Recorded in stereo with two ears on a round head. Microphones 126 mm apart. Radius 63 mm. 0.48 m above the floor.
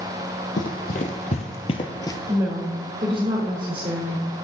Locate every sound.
0.6 s running footsteps: 65° left (ahead or behind), 1.3 m; by 2.2 s 20° left (ahead or behind), 0.6 m
2.3 s a woman speaking: 35° right (ahead or behind), 1.6 m